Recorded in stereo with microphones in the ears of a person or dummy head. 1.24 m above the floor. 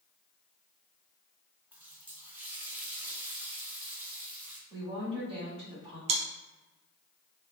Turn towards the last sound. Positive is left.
turn(degrees=-35)  # may be behind; listen again after turning